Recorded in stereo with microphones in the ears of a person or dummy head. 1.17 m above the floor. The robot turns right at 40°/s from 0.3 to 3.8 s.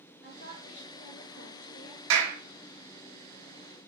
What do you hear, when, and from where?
0.2 s a woman speaking: 45° left, 2.5 m; by 2.0 s 115° left, 2.5 m
2.1 s a clap: 85° right, 1.5 m; by 2.4 s 80° right, 1.5 m